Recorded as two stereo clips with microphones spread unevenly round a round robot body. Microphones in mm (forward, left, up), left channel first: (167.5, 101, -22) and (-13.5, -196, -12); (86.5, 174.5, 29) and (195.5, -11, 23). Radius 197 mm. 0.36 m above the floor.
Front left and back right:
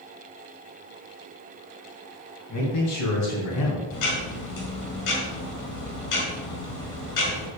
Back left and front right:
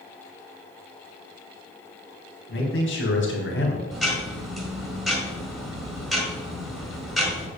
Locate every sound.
2.5 s a man speaking: 105° left, 4 m; by 3.8 s 100° left, 3 m
3.9 s ticking: 30° left, 4.5 m